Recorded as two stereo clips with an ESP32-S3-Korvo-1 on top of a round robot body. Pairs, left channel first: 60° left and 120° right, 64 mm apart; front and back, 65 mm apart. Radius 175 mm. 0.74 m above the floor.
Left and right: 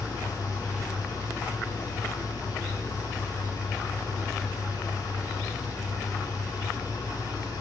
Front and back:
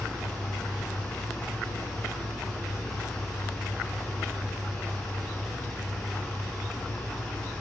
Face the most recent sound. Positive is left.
turn(degrees=85)